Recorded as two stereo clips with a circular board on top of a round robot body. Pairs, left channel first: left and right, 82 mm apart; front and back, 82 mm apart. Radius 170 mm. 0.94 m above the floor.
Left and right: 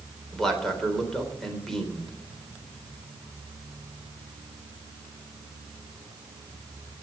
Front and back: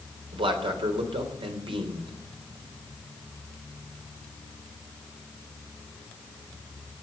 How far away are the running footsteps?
No running footsteps in this recording.